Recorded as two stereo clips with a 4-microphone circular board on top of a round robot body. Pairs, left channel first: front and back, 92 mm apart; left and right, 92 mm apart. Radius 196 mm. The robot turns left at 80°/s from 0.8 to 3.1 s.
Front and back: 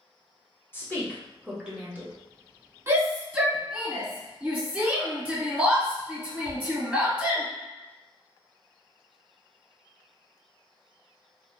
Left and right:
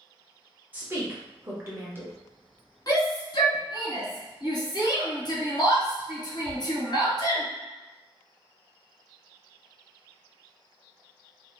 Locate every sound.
0.7 s a woman speaking: 40° right, 1.3 m; by 2.1 s 145° right, 1.3 m
2.9 s a shout: 130° left, 1.8 m; by 7.4 s 110° left, 1.8 m